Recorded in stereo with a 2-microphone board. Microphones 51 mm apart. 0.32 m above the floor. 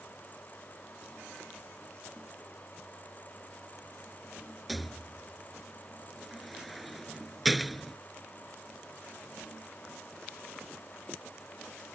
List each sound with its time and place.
4.7 s a rattle: centre (ahead or behind)